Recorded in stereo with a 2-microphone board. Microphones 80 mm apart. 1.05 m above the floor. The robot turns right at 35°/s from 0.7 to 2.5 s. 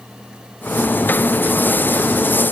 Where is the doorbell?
No doorbell in this recording.